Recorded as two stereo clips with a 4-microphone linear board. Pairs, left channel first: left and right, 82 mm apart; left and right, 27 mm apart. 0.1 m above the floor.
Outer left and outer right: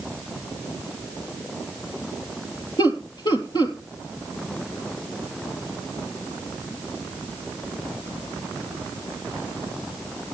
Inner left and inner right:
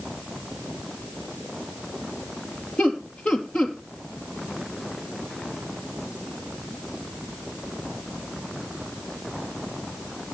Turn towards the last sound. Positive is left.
turn(degrees=60)  # may be behind; listen again after turning